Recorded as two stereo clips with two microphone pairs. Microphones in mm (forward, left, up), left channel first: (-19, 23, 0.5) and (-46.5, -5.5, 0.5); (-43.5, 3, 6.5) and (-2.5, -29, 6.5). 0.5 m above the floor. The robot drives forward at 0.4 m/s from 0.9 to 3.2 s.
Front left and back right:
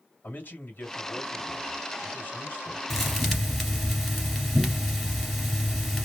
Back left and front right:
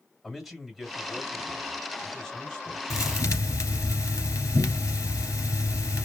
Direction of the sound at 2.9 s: 130° left.